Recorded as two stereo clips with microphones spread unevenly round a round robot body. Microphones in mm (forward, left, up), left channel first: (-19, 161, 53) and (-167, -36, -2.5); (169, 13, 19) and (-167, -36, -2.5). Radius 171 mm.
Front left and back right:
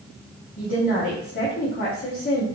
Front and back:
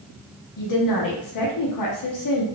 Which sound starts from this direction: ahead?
A woman speaking, at 0.6 s.